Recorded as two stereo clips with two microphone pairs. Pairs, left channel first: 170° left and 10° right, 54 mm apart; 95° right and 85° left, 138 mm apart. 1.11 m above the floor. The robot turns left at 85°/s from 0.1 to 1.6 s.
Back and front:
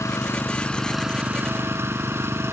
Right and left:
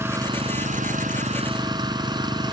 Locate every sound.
0.0 s an engine running: 155° left; by 2.5 s 25° left